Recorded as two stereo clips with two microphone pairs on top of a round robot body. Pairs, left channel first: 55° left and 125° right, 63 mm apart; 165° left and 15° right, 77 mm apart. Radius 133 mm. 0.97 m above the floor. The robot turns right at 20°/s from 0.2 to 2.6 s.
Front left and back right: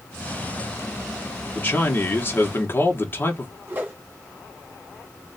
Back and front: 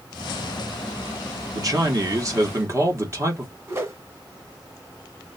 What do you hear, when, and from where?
1.5 s a man speaking: straight ahead, 1.4 m; by 3.5 s 25° left, 1.4 m
3.7 s a whoosh: 70° right, 2 m